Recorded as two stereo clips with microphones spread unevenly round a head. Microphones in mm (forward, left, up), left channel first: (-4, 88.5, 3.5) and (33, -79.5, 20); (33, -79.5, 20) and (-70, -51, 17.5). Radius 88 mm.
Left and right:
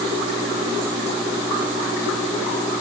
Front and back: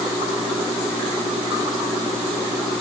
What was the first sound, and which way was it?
Only background noise.